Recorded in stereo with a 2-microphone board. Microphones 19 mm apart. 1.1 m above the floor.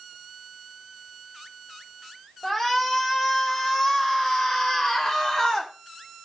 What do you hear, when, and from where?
2.4 s a shout: 30° left (ahead or behind), 5 m; by 5.7 s 40° left (ahead or behind), 2.5 m